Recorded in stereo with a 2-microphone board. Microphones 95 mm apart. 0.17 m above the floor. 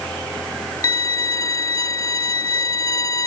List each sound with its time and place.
0.8 s a violin: 40° left (ahead or behind)